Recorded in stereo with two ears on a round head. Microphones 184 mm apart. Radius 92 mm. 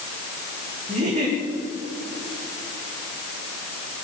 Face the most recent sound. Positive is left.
turn(degrees=-35)  # may be behind; listen again after turning